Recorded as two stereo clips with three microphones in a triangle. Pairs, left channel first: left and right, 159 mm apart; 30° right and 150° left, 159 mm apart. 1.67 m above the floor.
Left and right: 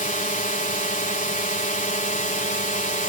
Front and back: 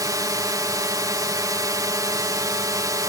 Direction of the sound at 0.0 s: 90° left.